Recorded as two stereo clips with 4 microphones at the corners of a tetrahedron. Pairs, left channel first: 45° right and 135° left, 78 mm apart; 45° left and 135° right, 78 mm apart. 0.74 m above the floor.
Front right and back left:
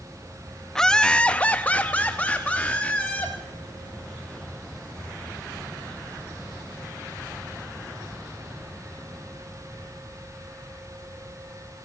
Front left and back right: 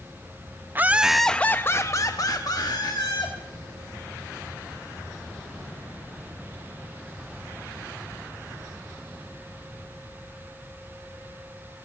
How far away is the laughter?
About 0.6 m.